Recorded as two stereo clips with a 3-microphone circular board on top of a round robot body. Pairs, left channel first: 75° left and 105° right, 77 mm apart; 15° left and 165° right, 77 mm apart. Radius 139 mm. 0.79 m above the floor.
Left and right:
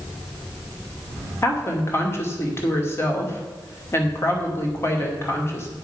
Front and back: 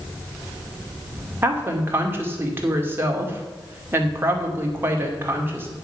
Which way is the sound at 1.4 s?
135° left.